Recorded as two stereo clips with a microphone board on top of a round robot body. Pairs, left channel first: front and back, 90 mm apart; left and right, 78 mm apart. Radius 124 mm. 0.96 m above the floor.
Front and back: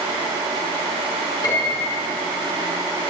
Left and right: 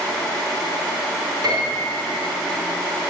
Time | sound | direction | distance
1.4 | a piano | 50° right | 4.5 m